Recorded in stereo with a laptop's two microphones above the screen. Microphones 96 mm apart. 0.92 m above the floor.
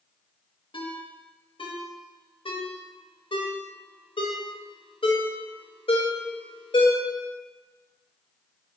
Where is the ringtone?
65° left (ahead or behind), 0.6 m.